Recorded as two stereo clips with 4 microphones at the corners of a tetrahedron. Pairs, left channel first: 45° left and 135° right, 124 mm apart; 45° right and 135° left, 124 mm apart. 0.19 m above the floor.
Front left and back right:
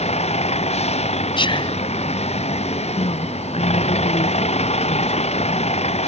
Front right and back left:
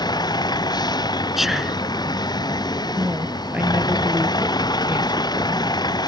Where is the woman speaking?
60° left.